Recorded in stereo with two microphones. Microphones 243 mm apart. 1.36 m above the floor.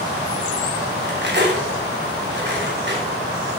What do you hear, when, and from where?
1.0 s cutlery clinking: 50° right (ahead or behind), 2.5 m